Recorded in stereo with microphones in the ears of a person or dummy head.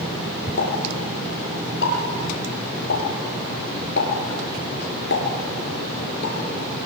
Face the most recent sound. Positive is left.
turn(degrees=65)  # may be behind; listen again after turning